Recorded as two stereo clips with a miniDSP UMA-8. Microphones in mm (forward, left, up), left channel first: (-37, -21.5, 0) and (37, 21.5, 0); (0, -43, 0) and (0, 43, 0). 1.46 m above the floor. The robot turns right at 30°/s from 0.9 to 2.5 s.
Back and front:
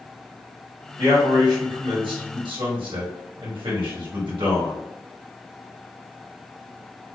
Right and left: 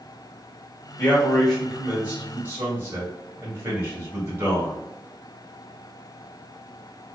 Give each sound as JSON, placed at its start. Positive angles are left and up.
{"t": 1.0, "sound": "a man speaking", "azimuth_deg": -15, "distance_m": 1.8}